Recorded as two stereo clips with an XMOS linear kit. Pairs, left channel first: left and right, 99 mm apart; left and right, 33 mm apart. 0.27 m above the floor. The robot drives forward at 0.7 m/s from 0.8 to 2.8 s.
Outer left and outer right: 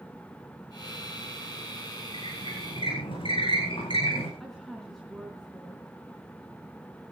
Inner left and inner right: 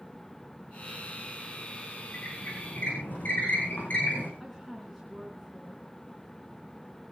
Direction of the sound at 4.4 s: Centre (ahead or behind).